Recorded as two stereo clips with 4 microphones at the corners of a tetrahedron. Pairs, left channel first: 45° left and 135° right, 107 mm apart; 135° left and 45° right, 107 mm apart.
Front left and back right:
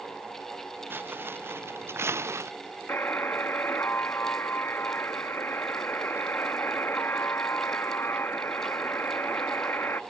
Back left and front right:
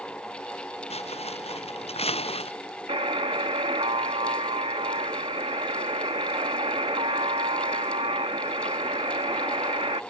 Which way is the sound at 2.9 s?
25° right.